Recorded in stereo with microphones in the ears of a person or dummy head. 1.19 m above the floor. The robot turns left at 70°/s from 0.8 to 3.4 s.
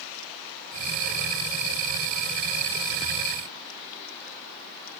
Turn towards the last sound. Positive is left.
No sound to turn to.